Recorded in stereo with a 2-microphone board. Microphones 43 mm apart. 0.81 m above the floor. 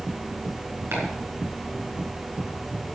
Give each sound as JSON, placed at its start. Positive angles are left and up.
{"t": 0.9, "sound": "chopping", "side_deg": -85, "distance_m": 4.5}